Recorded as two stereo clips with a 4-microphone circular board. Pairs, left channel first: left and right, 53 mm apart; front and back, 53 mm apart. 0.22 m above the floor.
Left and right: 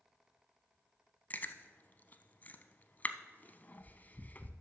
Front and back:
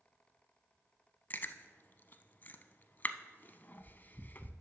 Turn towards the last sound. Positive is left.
turn(degrees=45)